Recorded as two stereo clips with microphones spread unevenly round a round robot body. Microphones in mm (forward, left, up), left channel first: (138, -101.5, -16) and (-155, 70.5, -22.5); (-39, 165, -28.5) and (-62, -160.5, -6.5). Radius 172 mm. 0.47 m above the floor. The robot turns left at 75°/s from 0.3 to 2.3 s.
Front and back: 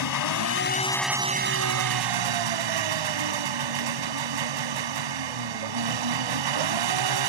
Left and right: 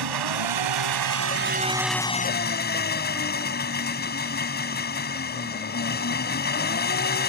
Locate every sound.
0.0 s an engine running: 65° right; by 7.3 s 145° left